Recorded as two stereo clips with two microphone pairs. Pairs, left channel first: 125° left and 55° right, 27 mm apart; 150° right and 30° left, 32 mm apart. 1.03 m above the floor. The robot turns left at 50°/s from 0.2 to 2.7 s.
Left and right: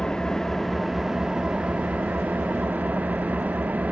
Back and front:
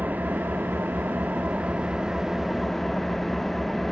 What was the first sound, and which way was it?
An engine running, 60° left.